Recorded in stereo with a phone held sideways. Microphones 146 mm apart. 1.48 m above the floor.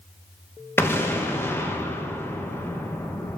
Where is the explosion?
20° left (ahead or behind), 0.8 m.